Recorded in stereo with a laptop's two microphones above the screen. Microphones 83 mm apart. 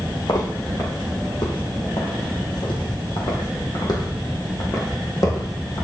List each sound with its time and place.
0.3 s footsteps: 65° left (ahead or behind), 3.5 m; by 5.8 s 40° left (ahead or behind), 3 m